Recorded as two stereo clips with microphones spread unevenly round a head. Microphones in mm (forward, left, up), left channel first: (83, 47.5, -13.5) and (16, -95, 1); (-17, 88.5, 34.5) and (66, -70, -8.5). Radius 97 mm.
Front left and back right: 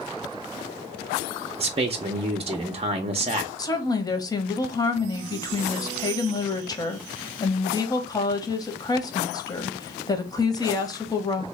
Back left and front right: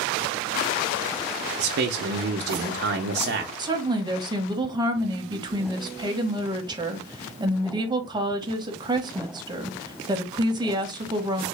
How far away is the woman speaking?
About 1.0 m.